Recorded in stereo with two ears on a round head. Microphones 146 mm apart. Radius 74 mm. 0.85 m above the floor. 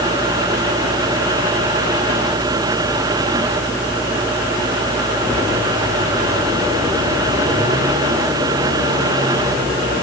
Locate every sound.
Only background noise.